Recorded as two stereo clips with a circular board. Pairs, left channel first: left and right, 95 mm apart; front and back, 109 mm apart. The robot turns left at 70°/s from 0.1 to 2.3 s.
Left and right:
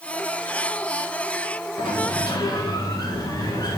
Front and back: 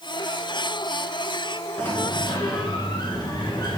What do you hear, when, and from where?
1.8 s a sliding door: 80° left, 1.7 m; by 3.8 s 45° left, 1.7 m